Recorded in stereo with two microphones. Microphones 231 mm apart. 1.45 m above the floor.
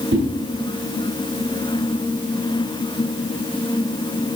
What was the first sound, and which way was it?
A whoosh, 60° right (ahead or behind).